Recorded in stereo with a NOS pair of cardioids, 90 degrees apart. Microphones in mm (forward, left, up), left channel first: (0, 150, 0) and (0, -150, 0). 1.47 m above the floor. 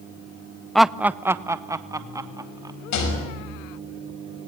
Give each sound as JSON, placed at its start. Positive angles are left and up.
{"t": 0.8, "sound": "laughter", "azimuth_deg": 0, "distance_m": 0.6}
{"t": 2.9, "sound": "a rattle", "azimuth_deg": 70, "distance_m": 6.0}